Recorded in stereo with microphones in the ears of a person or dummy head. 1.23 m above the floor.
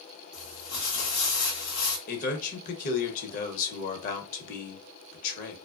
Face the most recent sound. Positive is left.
turn(degrees=50)  # may be behind; listen again after turning